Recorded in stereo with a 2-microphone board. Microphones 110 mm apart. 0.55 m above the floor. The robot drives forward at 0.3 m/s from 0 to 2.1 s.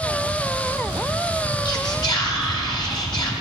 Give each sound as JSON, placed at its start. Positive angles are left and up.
{"t": 1.6, "sound": "whispering", "side_deg": 40, "distance_m": 1.7}